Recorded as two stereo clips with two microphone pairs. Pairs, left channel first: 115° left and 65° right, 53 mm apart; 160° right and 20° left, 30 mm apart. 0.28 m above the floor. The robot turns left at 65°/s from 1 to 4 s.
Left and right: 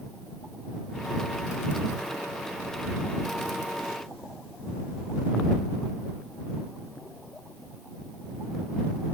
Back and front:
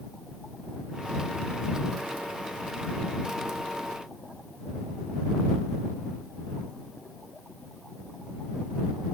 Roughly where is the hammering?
I don't hear hammering.